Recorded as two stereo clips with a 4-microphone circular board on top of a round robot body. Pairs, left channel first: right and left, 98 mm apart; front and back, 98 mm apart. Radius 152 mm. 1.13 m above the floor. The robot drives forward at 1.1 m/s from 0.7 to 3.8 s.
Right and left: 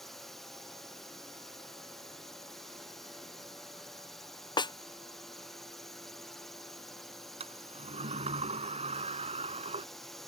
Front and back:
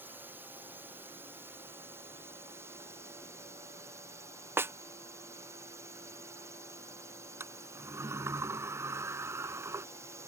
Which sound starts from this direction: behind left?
A sliding door, at 7.4 s.